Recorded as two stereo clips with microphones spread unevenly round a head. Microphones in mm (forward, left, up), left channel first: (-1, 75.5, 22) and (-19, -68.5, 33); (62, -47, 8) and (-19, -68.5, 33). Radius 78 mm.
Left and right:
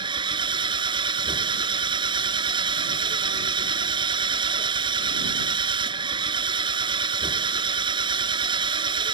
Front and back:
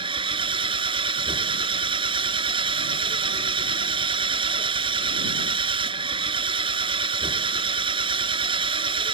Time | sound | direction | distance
0.0 | an engine running | 155° right | ?